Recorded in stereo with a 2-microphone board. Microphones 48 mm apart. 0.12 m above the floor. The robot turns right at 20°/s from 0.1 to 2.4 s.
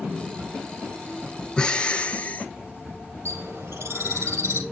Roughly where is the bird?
Right.